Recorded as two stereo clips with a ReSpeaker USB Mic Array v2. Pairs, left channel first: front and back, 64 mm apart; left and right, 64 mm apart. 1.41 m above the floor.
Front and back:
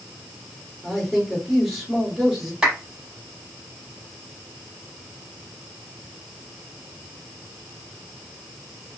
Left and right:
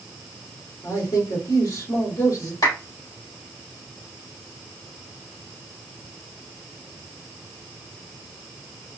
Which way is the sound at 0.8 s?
90° left.